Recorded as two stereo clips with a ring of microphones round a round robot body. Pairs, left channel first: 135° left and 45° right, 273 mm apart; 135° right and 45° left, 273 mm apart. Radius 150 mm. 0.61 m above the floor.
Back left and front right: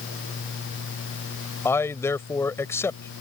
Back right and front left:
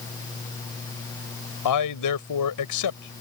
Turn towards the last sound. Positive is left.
turn(degrees=-145)